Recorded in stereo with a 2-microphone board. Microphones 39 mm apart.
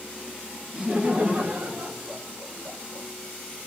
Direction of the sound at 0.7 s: 20° right (ahead or behind).